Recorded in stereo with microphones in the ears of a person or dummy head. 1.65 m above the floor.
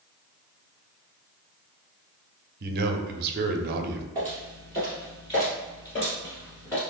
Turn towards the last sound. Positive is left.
turn(degrees=15)  # may be behind; listen again after turning